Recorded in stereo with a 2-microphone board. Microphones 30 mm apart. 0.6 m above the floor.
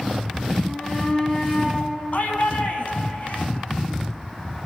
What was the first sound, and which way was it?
A shout, 35° left (ahead or behind).